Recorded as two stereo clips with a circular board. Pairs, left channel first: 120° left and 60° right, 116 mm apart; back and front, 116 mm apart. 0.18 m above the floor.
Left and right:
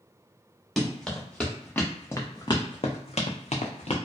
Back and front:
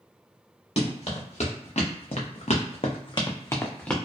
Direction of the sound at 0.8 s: 150° right.